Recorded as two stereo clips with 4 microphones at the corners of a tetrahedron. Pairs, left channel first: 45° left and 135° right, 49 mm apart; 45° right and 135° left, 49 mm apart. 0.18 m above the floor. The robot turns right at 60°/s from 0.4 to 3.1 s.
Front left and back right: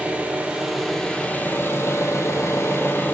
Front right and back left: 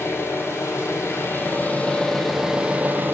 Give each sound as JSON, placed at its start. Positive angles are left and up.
{"t": 0.0, "sound": "an engine running", "azimuth_deg": -70, "distance_m": 1.3}